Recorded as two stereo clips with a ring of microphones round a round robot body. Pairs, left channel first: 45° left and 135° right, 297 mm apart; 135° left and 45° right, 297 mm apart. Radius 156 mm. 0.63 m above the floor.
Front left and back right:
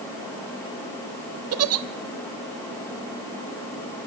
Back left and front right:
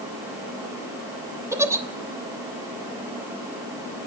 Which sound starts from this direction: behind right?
A giggle, at 1.5 s.